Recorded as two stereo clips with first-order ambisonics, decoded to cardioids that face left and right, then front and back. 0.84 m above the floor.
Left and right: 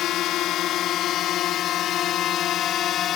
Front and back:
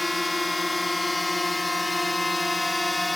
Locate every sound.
0.0 s a drone: 80° left